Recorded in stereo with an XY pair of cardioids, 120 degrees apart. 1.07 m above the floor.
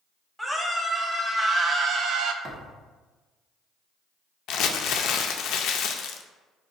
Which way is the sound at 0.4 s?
5° right.